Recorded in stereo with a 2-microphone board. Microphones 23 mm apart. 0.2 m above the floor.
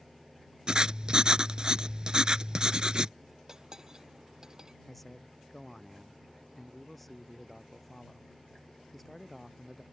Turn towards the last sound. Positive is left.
turn(degrees=5)  # may be behind; listen again after turning